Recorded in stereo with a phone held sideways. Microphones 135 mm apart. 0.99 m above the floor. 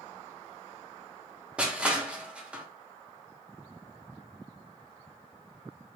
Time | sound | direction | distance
1.6 | crushing | 10° right (ahead or behind) | 0.6 m